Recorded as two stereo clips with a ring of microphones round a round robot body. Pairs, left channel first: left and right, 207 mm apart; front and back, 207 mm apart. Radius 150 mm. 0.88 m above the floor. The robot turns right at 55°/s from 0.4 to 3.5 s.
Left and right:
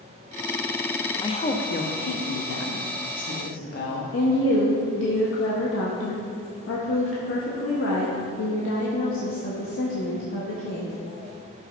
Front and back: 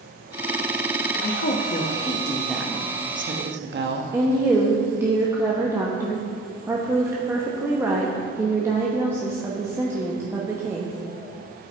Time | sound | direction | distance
1.2 | a woman speaking | 20° left | 1.1 m
4.1 | a woman speaking | 100° left | 1.0 m